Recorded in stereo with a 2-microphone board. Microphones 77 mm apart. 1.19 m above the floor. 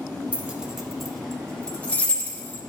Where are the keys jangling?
20° right (ahead or behind), 1.1 m; by 2.6 s 25° left (ahead or behind), 1.9 m.